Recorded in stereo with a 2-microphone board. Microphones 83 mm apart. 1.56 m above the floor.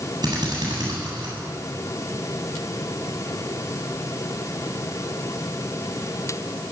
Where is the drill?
60° right (ahead or behind), 8.5 m.